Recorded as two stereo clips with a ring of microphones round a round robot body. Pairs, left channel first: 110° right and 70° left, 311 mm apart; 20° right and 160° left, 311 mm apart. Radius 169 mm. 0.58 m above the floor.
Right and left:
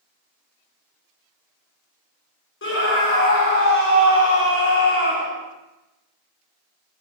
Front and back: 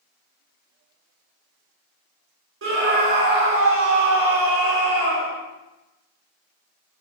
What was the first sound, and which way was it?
A scream, 160° right.